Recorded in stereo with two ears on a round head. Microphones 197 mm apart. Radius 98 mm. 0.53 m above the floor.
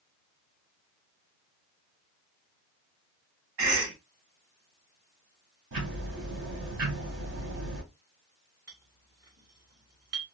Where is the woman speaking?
No woman speaking in this recording.